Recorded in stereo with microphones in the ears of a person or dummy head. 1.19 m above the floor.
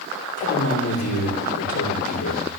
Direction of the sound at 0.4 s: 90° left.